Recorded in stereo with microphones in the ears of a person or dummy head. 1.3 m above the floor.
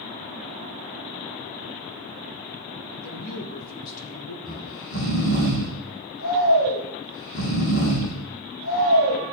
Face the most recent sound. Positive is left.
turn(degrees=70)  # may be behind; listen again after turning